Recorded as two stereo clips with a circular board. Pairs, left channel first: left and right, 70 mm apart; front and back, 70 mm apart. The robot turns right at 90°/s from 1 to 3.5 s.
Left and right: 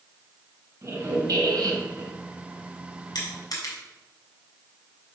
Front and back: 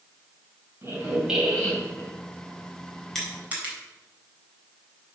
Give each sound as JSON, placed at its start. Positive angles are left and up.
{"t": 0.8, "sound": "a squeak", "azimuth_deg": -130, "distance_m": 2.5}
{"t": 3.1, "sound": "crushing", "azimuth_deg": 85, "distance_m": 3.5}